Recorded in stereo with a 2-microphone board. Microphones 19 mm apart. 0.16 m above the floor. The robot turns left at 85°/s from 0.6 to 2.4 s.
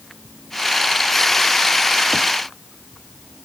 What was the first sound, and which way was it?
Only background noise.